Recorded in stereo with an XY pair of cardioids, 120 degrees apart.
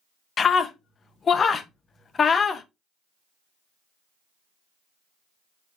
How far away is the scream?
About 1.0 m.